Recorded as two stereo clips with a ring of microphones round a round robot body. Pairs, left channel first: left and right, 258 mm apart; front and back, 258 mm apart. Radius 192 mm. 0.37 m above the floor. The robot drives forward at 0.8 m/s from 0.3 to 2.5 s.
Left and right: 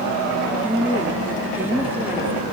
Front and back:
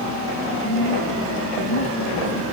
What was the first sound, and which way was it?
A woman speaking, 5° right.